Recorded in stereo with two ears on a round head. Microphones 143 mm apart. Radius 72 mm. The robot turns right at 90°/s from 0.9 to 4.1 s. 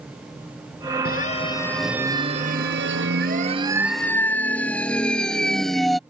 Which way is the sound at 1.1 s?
65° left (ahead or behind).